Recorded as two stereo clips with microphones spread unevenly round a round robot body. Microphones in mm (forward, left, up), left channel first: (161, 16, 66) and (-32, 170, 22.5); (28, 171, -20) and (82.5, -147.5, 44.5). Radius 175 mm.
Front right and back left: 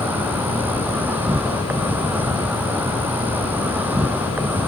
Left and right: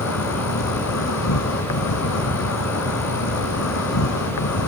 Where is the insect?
55° left.